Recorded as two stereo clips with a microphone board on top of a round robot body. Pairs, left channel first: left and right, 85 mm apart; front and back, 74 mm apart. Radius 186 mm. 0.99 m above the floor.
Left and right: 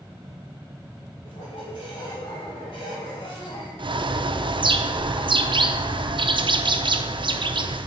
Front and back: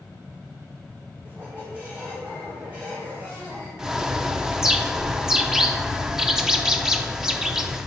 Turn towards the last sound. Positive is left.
turn(degrees=-95)